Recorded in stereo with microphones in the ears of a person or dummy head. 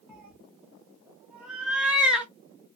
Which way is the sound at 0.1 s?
5° right (ahead or behind).